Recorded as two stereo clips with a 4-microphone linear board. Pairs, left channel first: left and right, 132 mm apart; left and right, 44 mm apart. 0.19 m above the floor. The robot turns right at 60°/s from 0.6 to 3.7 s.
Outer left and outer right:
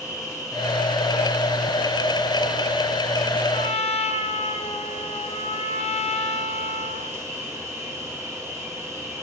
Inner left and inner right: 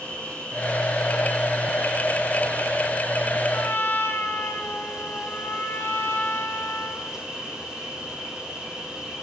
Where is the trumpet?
50° left (ahead or behind), 2.5 m; by 7.2 s 55° left (ahead or behind), 2.5 m.